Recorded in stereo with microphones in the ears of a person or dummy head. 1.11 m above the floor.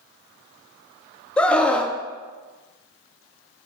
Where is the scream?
5° left (ahead or behind), 0.7 m.